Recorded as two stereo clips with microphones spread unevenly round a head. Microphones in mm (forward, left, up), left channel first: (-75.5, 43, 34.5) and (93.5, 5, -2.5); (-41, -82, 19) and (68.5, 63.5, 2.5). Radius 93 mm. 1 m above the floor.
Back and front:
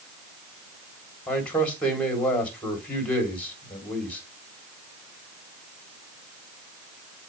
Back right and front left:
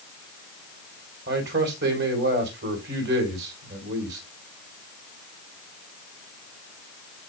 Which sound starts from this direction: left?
A man speaking, at 1.3 s.